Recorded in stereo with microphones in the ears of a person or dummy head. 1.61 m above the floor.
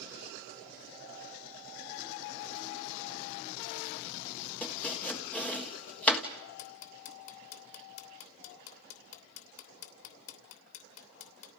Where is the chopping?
10° left (ahead or behind), 1.4 m.